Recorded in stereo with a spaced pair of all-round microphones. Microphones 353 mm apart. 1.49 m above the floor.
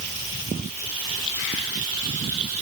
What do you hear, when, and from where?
Only background noise.